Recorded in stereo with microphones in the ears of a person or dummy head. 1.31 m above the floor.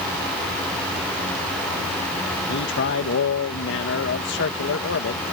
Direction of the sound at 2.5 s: 60° left (ahead or behind).